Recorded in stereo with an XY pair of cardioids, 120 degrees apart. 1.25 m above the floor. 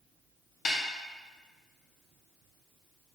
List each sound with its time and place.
0.7 s a snare drum: 50° left, 0.6 m